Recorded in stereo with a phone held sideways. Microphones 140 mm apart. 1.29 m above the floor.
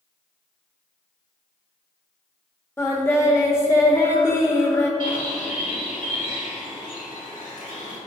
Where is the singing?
20° left (ahead or behind), 1.6 m.